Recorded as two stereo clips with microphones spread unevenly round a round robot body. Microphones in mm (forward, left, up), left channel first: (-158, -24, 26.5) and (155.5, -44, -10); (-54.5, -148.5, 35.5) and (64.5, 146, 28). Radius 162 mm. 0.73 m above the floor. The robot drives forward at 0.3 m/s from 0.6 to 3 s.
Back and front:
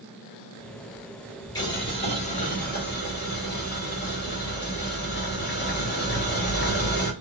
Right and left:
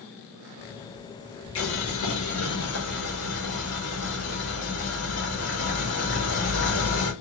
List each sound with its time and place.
1.6 s boiling: 105° right, 1.1 m; by 7.1 s 130° right, 1.3 m